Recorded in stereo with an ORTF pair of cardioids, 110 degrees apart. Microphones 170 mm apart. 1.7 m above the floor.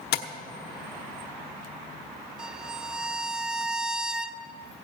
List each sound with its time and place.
0.1 s tapping: 65° left, 1.2 m
2.4 s a violin: 5° right, 0.5 m